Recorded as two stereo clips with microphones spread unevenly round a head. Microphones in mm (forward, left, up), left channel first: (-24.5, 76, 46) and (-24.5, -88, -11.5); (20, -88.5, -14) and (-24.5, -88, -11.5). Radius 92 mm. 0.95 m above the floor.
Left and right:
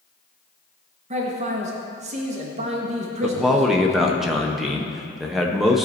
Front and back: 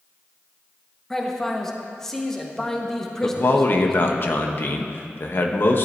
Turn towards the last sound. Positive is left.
turn(degrees=-20)